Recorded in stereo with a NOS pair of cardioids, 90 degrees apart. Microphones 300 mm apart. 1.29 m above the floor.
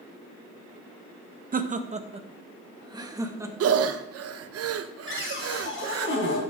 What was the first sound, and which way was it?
Laughter, 30° right.